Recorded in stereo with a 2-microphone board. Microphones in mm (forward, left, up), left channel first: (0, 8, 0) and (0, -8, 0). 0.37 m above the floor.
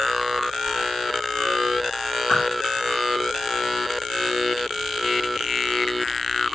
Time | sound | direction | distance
2.3 | a whoosh | 35° left (ahead or behind) | 3.5 m